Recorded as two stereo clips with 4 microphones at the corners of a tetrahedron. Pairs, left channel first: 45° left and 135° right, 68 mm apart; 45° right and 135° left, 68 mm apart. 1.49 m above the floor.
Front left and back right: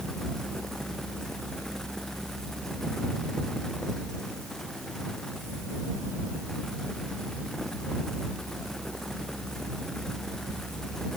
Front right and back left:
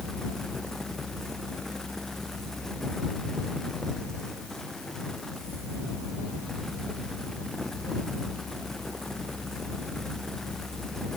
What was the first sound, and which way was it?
Only background noise.